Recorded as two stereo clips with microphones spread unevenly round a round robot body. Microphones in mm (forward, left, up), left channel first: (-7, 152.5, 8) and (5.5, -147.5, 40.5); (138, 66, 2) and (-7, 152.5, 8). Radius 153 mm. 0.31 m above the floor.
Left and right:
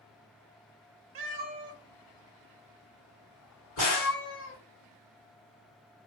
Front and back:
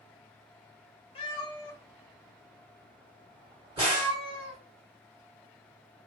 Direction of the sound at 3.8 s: 95° left.